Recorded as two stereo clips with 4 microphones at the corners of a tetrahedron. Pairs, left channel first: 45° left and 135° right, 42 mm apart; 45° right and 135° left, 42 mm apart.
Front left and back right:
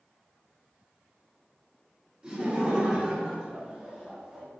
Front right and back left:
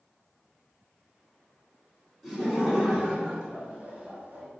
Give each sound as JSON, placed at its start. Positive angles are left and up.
{"t": 2.2, "sound": "laughter", "azimuth_deg": -135, "distance_m": 1.9}